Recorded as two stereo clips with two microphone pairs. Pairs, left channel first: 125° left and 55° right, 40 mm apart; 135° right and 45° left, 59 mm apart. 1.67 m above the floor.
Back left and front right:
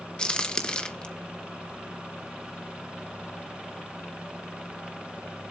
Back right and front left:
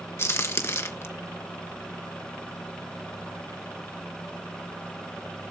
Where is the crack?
170° right, 1.4 m.